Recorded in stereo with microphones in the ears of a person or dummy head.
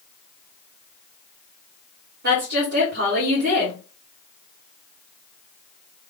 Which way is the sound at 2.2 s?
70° right (ahead or behind).